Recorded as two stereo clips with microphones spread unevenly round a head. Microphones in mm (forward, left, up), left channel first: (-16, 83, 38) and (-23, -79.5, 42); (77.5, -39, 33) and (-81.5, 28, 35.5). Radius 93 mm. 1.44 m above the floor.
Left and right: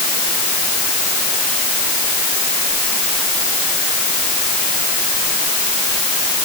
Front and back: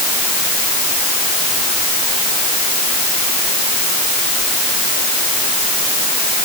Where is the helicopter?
I don't hear a helicopter.